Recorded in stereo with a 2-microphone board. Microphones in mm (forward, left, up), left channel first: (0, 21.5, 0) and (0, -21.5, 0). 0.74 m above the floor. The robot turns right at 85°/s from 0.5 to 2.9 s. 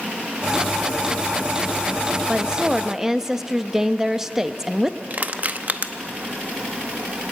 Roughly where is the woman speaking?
Right.